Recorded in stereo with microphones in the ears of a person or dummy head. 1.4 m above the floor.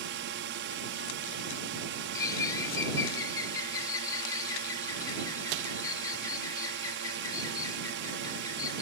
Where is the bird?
20° left (ahead or behind).